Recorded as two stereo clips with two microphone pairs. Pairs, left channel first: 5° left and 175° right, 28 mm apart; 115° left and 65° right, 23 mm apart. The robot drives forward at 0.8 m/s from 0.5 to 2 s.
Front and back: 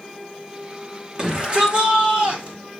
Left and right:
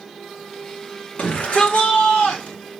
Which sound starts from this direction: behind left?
A shout, at 1.2 s.